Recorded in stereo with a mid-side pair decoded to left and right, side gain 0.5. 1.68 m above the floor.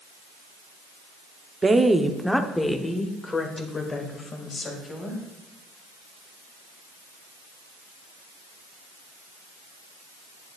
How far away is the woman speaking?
About 0.8 m.